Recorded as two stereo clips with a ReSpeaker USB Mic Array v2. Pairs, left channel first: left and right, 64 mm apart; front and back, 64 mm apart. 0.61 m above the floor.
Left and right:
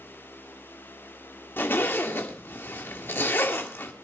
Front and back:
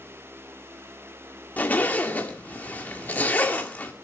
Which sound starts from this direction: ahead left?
A zipper, at 1.6 s.